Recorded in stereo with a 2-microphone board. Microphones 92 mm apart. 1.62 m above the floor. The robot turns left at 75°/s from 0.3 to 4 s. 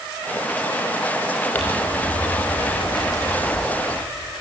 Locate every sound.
1.6 s crumpling: 160° left, 5 m; by 3.6 s 5° left, 5 m